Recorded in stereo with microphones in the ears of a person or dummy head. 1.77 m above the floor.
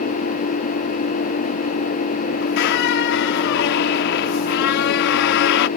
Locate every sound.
0.0 s an engine running: 50° left (ahead or behind)
2.4 s a squeak: 60° left (ahead or behind)